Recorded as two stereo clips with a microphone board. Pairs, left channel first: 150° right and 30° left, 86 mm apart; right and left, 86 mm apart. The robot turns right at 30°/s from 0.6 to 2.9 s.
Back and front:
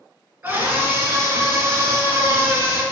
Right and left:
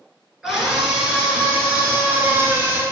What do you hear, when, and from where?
0.4 s a scream: 5° left, 1.4 m; by 2.8 s 70° left, 1.4 m